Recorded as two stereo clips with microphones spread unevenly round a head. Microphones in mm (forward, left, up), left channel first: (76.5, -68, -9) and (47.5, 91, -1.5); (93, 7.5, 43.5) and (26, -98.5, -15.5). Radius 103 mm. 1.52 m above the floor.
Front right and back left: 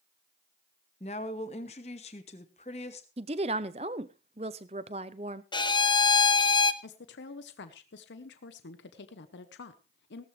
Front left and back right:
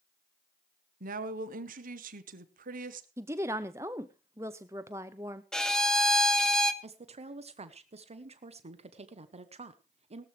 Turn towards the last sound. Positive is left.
turn(degrees=-85)